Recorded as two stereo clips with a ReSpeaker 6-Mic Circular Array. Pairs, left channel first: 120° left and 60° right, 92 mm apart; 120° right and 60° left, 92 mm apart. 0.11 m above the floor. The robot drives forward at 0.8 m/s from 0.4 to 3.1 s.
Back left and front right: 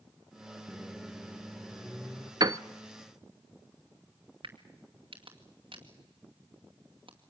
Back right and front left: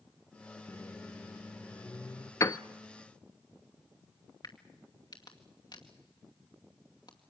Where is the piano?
80° right, 0.6 m; by 2.6 s 95° right, 0.6 m.